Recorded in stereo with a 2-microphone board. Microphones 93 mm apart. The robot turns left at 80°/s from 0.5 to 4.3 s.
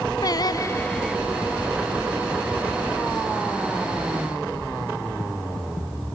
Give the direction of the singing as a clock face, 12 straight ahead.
10 o'clock.